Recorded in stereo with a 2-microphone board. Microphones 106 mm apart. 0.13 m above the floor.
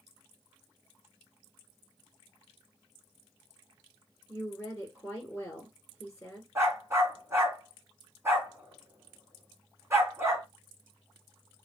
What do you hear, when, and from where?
4.3 s a woman speaking: 10° left (ahead or behind), 1.4 m
6.5 s a dog barking: 25° right (ahead or behind), 1.4 m